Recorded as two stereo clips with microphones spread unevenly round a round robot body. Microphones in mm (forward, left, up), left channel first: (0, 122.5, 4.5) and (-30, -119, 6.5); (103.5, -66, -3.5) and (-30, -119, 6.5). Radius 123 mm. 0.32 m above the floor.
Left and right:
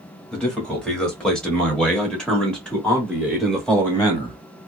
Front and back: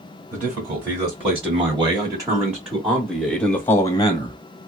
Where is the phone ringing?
I don't hear a phone ringing.